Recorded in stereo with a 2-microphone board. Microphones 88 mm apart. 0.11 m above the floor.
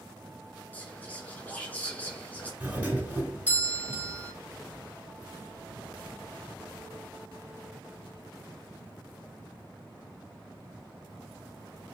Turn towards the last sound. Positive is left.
turn(degrees=-15)  # may be behind; listen again after turning